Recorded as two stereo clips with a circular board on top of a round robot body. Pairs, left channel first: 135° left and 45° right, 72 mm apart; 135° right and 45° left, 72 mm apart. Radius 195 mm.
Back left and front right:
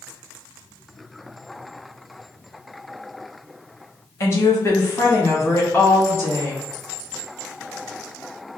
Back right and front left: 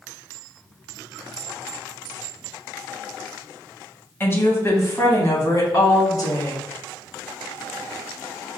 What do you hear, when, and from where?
4.2 s a woman speaking: 175° left, 1.6 m; by 6.6 s 165° right, 2.5 m